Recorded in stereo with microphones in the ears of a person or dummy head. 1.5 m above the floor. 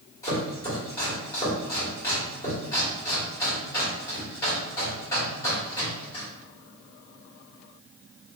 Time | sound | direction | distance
0.2 | chopping | 15° left (ahead or behind) | 2.0 m